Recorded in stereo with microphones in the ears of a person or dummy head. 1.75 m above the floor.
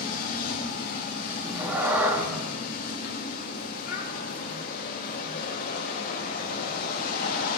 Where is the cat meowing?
10° right (ahead or behind), 1.8 m.